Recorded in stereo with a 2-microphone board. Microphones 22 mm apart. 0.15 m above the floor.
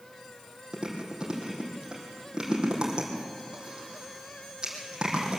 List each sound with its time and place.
0.7 s chewing: 40° right (ahead or behind), 4 m